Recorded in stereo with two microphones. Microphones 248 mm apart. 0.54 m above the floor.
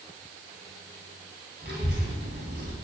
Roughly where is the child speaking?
Right.